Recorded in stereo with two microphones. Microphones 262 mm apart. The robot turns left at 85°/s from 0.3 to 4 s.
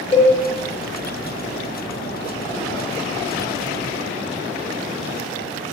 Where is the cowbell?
20° left (ahead or behind), 1.7 m.